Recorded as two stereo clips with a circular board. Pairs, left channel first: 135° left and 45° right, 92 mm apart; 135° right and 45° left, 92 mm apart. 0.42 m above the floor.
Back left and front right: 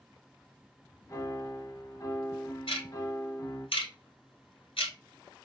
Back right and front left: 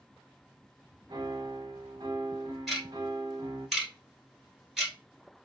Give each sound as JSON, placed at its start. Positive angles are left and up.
{"t": 1.1, "sound": "a piano", "azimuth_deg": 85, "distance_m": 0.5}
{"t": 2.7, "sound": "ticking", "azimuth_deg": 130, "distance_m": 1.1}